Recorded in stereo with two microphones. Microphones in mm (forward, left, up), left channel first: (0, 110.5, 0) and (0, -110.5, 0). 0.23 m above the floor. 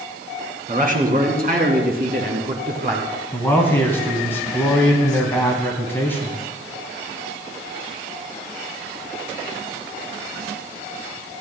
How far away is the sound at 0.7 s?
About 2.5 m.